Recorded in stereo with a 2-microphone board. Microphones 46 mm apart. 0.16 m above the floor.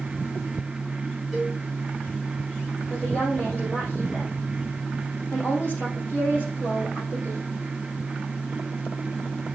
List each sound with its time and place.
1.3 s a cowbell: 5° left (ahead or behind), 4 m
2.9 s a woman speaking: 40° left (ahead or behind), 5 m